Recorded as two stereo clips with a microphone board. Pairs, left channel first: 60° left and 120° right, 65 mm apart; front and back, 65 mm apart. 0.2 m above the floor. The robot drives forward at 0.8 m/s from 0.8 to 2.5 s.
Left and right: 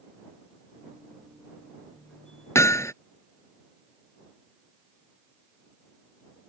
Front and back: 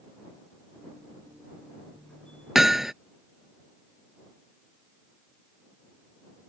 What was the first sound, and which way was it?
Hammering, 95° left.